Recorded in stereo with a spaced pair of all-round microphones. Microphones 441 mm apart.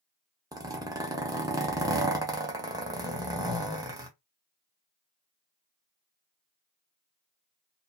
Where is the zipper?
10° right (ahead or behind), 0.8 m.